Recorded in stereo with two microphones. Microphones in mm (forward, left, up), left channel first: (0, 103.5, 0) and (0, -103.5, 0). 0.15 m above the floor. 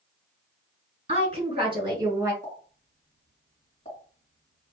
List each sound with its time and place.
1.1 s a woman speaking: 30° right (ahead or behind), 2 m; by 2.3 s 15° right (ahead or behind), 1.8 m
2.4 s a pop: 30° left (ahead or behind), 2 m